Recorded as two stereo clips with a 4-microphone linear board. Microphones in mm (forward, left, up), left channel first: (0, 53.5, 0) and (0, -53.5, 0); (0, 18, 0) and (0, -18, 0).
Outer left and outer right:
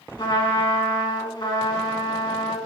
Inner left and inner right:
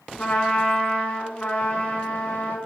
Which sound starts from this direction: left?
A trumpet, at 0.2 s.